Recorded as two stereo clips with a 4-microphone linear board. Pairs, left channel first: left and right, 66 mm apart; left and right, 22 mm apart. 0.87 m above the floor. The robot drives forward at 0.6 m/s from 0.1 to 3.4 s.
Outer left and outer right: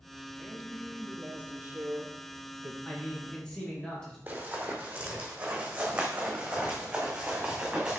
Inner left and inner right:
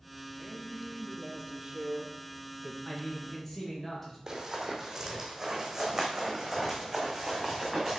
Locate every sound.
0.4 s a man speaking: 15° right (ahead or behind), 1.7 m; by 2.8 s 40° right (ahead or behind), 0.8 m
2.9 s a man speaking: 15° left (ahead or behind), 1.8 m; by 4.2 s 10° left (ahead or behind), 2 m
4.3 s running footsteps: 25° right (ahead or behind), 1.8 m; by 8.0 s 15° right (ahead or behind), 3.5 m